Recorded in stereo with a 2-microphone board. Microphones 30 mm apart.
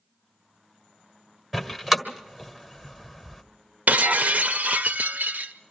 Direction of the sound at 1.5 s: 10° right (ahead or behind).